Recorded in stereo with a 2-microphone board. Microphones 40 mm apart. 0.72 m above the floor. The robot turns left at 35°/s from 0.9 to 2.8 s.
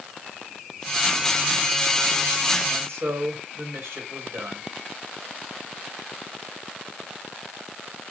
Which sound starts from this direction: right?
A man speaking, at 2.7 s.